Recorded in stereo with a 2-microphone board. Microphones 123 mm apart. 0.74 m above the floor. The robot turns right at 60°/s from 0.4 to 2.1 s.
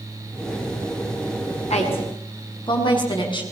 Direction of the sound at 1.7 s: 65° left (ahead or behind).